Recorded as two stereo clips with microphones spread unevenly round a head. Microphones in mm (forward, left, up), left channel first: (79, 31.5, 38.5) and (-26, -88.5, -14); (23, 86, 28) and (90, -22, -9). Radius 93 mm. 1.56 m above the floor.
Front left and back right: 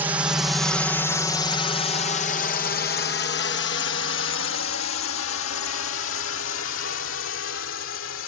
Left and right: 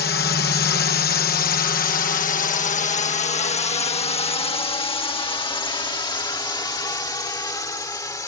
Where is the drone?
155° left; by 8.3 s 60° left.